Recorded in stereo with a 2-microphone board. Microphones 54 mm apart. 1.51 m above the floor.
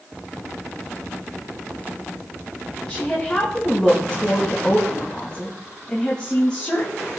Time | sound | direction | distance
2.9 | a woman speaking | 20° left (ahead or behind) | 2.5 m